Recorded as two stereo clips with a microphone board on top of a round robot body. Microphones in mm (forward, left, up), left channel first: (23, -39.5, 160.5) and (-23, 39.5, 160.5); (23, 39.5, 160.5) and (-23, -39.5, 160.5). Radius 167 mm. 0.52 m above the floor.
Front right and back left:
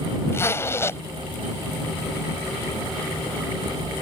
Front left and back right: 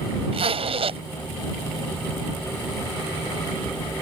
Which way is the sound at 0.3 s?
120° right.